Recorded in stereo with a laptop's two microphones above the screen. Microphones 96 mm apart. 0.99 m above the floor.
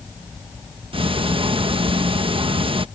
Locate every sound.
0.9 s ticking: 65° right (ahead or behind)